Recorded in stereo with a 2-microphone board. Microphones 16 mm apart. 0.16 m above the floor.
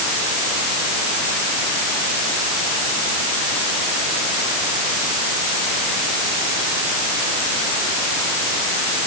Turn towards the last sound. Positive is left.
No sound to turn to.